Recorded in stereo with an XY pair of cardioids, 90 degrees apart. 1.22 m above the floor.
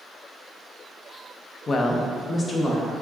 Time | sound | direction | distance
1.7 | a woman speaking | 50° left | 0.5 m